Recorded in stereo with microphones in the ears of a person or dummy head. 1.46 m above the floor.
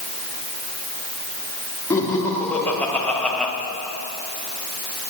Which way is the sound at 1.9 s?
15° left (ahead or behind).